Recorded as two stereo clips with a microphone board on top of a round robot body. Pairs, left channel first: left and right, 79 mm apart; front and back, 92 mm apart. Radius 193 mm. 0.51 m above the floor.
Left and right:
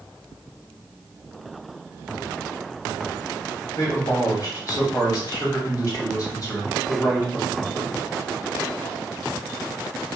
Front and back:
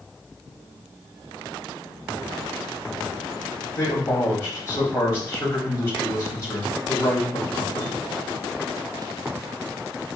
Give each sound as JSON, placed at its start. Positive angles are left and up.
{"t": 3.8, "sound": "a man speaking", "azimuth_deg": 45, "distance_m": 2.5}